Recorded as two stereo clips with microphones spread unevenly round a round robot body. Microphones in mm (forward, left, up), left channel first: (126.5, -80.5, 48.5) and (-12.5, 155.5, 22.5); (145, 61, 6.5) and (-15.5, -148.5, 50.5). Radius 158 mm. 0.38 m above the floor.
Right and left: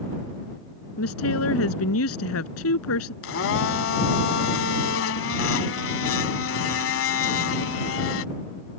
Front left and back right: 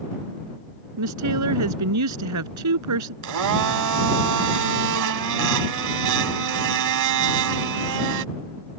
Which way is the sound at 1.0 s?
110° right.